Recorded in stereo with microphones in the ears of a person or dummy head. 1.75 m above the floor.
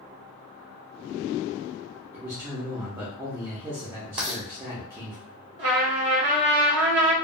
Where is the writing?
20° right (ahead or behind), 0.9 m.